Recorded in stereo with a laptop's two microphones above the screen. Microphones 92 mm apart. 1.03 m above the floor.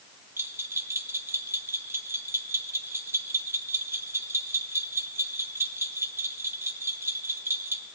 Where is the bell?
25° right (ahead or behind), 0.9 m.